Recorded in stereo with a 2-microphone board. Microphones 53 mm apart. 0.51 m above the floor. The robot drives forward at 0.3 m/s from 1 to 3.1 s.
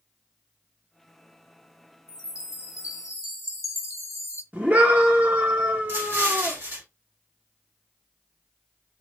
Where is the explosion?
50° right (ahead or behind), 2.0 m.